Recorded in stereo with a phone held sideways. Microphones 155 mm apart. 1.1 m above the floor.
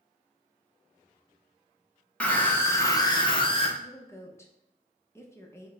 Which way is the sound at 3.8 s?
15° left (ahead or behind).